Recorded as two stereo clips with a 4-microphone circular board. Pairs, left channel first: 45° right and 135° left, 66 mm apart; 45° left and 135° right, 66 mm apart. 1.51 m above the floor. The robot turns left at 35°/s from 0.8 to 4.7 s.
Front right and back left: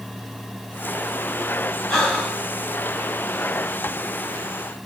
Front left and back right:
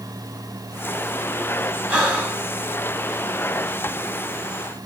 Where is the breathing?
100° right, 1.4 m; by 2.4 s 120° right, 1.4 m.